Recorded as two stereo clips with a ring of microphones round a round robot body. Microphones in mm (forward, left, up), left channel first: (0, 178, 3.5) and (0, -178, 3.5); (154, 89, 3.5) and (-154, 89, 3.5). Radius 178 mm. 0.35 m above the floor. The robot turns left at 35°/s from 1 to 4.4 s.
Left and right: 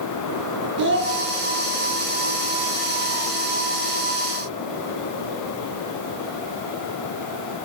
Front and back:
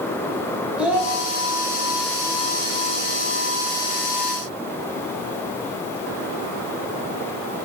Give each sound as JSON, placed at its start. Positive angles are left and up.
{"t": 0.8, "sound": "a child speaking", "azimuth_deg": -100, "distance_m": 0.6}